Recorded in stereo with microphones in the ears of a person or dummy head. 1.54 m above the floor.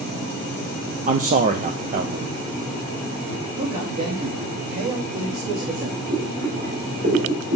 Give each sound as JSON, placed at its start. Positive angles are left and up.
{"t": 1.1, "sound": "a man speaking", "side_deg": -30, "distance_m": 0.6}
{"t": 3.6, "sound": "a man speaking", "side_deg": -55, "distance_m": 2.0}
{"t": 6.1, "sound": "boiling", "side_deg": -50, "distance_m": 5.0}